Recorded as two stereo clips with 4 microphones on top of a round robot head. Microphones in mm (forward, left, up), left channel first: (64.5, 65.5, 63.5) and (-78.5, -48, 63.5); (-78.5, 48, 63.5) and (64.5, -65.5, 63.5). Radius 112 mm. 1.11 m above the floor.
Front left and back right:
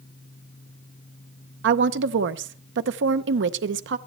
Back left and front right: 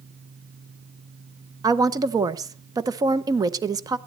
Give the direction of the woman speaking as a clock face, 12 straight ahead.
4 o'clock.